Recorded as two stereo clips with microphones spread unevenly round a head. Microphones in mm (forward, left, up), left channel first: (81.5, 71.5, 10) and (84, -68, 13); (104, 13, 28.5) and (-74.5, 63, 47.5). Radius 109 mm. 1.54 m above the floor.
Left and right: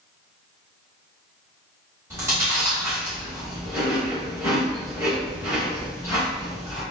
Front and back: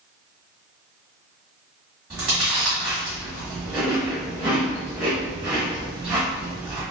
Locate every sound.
2.1 s chewing: 130° right, 1.2 m